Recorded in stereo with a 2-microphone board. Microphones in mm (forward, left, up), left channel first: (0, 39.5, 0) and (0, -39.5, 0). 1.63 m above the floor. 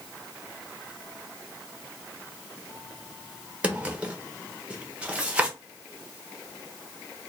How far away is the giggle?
No giggle in this recording.